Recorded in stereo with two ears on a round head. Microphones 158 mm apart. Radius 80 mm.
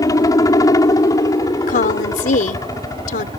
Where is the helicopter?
20° left (ahead or behind).